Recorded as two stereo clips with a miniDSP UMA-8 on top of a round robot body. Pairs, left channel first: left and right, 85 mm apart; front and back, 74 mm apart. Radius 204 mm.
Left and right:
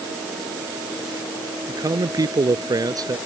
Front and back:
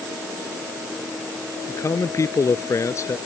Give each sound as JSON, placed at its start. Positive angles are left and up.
{"t": 1.7, "sound": "a man speaking", "azimuth_deg": -45}